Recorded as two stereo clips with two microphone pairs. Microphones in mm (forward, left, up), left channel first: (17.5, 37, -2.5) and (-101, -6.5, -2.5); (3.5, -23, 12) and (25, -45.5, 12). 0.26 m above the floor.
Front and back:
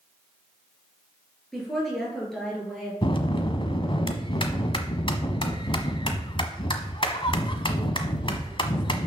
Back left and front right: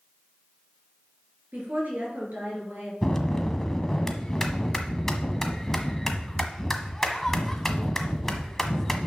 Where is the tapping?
No tapping in this recording.